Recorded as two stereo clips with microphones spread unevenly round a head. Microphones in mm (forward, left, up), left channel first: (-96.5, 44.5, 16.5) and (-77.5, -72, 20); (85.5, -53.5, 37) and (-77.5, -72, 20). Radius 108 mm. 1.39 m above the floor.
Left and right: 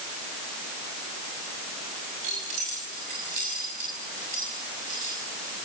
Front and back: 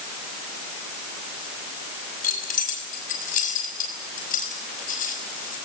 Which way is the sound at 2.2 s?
30° right.